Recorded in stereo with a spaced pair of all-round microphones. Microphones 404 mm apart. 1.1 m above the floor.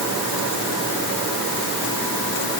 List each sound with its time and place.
Only background noise.